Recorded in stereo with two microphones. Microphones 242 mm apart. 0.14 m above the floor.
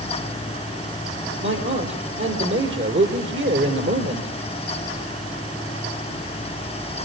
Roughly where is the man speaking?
Right.